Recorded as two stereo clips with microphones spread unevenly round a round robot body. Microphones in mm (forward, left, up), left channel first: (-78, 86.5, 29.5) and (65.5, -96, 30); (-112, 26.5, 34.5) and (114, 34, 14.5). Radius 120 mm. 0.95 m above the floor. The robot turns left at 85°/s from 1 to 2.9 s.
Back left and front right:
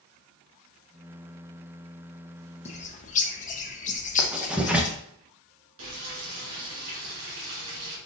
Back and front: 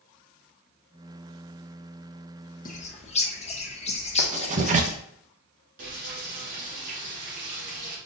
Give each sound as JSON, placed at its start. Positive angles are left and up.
{"t": 2.6, "sound": "a bird", "azimuth_deg": 160, "distance_m": 0.8}
{"t": 4.2, "sound": "writing", "azimuth_deg": 30, "distance_m": 0.8}
{"t": 5.8, "sound": "frying", "azimuth_deg": -55, "distance_m": 2.5}